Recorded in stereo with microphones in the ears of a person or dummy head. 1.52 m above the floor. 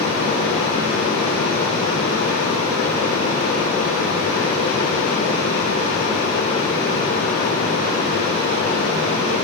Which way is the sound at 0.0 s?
50° left (ahead or behind).